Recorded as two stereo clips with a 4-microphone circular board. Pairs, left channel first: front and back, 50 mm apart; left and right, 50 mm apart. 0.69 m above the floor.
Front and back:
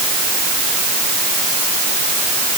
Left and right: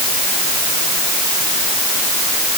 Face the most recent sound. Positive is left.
No sound to turn to.